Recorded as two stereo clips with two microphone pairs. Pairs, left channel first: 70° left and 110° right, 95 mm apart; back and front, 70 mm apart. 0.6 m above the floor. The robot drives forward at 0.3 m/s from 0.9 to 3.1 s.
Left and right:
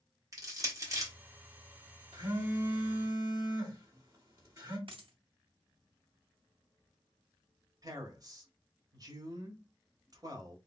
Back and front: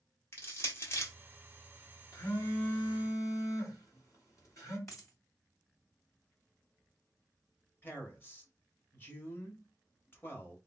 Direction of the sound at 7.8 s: 130° right.